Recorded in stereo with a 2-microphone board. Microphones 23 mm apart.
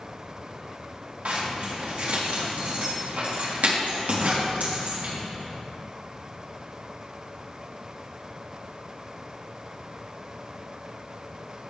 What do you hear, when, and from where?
1.2 s a zipper: 80° right, 3 m